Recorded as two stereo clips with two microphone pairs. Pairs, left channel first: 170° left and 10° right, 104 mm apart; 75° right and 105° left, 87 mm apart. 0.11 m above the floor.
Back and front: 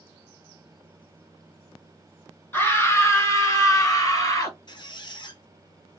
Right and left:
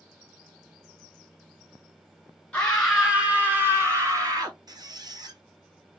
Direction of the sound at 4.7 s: 140° left.